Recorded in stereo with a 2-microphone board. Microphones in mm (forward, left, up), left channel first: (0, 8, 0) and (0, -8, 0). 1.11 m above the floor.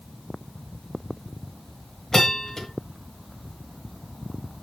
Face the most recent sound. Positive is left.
turn(degrees=35)  # may be behind; listen again after turning